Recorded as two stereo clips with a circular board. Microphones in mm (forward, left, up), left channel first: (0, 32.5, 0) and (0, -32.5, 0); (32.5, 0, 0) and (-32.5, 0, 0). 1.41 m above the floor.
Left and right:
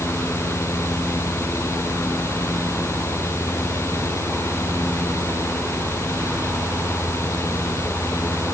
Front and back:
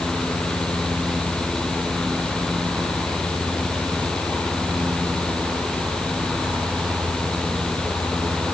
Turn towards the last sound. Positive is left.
No sound to turn to.